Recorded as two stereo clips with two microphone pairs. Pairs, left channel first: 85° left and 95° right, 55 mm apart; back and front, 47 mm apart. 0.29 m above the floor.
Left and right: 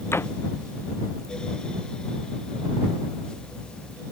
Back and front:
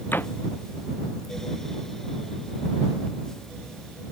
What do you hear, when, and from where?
0.1 s a door slam: 130° left